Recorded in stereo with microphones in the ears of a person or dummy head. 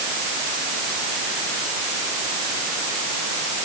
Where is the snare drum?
I don't hear a snare drum.